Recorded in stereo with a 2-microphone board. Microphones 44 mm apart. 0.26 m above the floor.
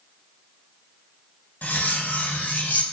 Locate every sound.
1.6 s cutlery clinking: 40° left (ahead or behind), 0.7 m